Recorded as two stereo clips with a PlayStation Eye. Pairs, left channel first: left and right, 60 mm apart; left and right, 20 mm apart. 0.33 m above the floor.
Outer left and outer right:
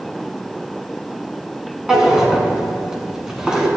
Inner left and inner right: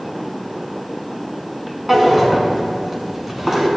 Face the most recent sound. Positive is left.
turn(degrees=-10)  # may be behind; listen again after turning